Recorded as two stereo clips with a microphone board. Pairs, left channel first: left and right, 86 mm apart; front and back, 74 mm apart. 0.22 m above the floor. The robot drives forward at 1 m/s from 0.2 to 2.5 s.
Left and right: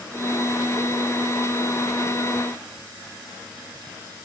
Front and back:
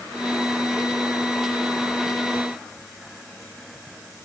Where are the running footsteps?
No running footsteps in this recording.